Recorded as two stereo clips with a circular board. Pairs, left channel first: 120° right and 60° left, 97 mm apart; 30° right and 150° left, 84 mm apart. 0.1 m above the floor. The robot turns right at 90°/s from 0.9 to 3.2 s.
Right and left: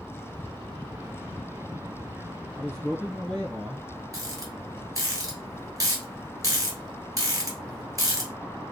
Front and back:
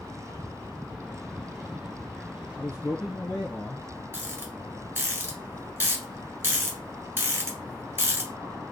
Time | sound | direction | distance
2.6 | a man speaking | 75° right | 1.4 m
4.1 | a rattle | 100° left | 1.5 m